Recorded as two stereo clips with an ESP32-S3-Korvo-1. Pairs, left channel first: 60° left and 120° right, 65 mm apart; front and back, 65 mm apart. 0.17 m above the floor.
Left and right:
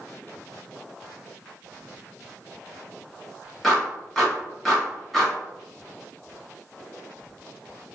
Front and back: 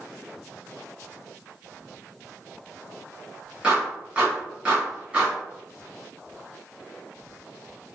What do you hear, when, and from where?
3.6 s a clap: 140° left, 1.1 m